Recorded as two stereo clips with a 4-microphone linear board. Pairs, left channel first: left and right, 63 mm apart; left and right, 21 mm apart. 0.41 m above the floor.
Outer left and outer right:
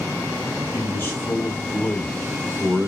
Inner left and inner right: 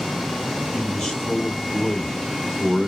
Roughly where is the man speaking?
Left.